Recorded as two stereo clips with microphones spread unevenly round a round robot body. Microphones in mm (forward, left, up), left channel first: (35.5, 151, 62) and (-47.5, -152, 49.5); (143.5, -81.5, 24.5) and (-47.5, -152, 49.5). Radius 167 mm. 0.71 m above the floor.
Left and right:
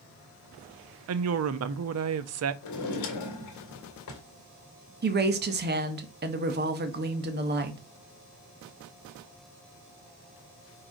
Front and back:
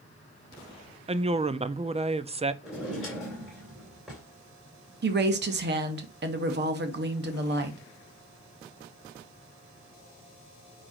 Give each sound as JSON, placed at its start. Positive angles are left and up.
{"t": 1.1, "sound": "a woman speaking", "azimuth_deg": -100, "distance_m": 0.7}
{"t": 2.6, "sound": "a drawer", "azimuth_deg": 110, "distance_m": 2.0}
{"t": 5.0, "sound": "a woman speaking", "azimuth_deg": -150, "distance_m": 1.1}